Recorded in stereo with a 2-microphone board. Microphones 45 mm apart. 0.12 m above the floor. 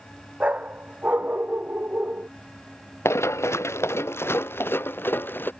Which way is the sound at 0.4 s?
30° right (ahead or behind).